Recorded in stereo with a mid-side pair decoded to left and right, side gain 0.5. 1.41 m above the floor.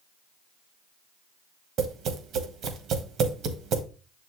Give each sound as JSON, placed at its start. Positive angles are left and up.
{"t": 1.8, "sound": "tapping", "azimuth_deg": -65, "distance_m": 1.6}